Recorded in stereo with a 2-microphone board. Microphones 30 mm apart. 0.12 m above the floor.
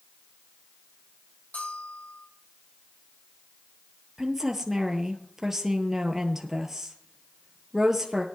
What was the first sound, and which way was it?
A bell, 70° left (ahead or behind).